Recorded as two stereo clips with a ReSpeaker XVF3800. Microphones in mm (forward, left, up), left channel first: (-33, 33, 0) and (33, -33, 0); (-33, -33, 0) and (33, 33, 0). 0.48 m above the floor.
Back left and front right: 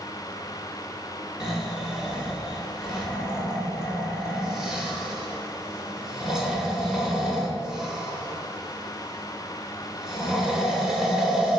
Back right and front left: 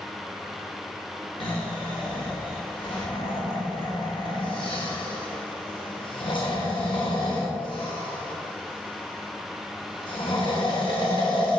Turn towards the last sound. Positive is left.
turn(degrees=-130)